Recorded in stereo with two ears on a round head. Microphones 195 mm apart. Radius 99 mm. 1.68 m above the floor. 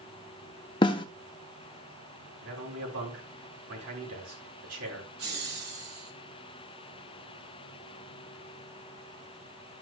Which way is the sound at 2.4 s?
85° right.